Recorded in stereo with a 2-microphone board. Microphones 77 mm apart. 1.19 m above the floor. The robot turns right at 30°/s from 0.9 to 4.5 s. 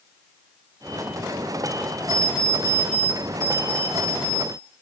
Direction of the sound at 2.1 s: 55° left.